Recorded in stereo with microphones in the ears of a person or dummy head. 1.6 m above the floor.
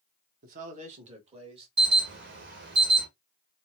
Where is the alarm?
55° right (ahead or behind), 1.2 m.